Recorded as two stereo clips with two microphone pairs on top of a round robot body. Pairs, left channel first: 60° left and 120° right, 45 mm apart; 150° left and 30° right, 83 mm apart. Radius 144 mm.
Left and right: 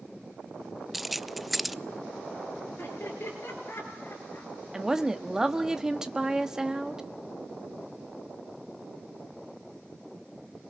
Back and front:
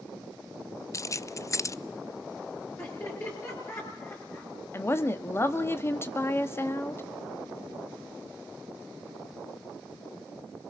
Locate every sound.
0.9 s keys jangling: 140° left, 0.6 m
2.8 s laughter: 95° left, 8.5 m
4.7 s a woman speaking: 170° left, 1.3 m